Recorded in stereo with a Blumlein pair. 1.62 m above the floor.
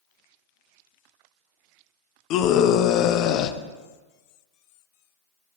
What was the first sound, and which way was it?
A scream, 40° left.